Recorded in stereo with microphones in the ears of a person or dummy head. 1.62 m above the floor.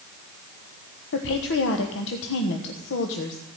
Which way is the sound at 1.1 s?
70° left (ahead or behind).